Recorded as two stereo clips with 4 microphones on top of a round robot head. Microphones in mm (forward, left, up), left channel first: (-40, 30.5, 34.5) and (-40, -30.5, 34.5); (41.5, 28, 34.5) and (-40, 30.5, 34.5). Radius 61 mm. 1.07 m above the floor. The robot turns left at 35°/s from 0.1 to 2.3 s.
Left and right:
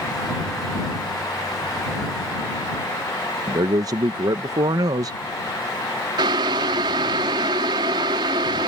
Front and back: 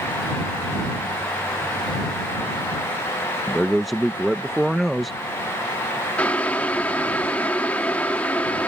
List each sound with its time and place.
3.5 s a man speaking: 90° right
6.2 s boiling: 80° right